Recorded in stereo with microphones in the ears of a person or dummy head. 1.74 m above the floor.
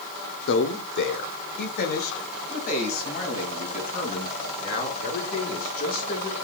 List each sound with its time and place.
0.5 s a man speaking: 65° left (ahead or behind), 1.0 m; by 6.3 s 45° left (ahead or behind), 6 m